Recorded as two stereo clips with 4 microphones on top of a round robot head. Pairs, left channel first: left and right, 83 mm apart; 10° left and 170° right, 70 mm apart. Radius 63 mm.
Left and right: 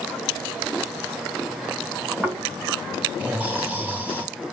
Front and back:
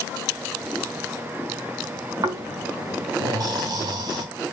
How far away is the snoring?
About 1.2 m.